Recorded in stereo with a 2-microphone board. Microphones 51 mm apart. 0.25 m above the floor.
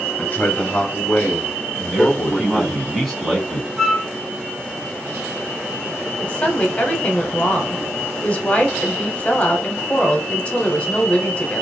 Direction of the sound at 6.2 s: 25° left (ahead or behind).